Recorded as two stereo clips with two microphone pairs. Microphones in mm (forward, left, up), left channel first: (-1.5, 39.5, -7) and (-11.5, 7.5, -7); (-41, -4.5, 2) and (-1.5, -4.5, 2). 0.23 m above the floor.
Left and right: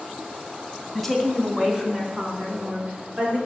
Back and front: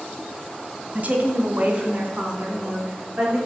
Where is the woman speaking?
15° right, 1.8 m; by 3.4 s 65° right, 4.5 m.